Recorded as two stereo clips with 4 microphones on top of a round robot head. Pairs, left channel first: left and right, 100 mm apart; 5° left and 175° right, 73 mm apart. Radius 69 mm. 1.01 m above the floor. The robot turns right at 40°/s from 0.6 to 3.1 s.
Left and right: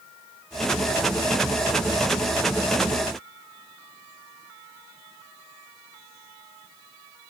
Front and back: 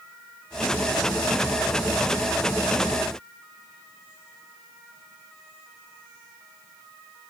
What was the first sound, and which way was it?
Only background noise.